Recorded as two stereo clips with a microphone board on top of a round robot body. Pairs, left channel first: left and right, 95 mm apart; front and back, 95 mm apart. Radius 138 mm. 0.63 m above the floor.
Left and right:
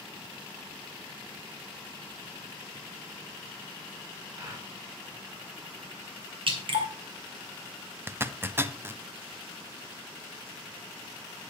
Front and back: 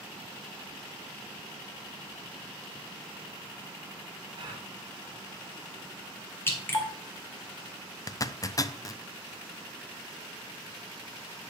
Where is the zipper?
30° right, 0.8 m.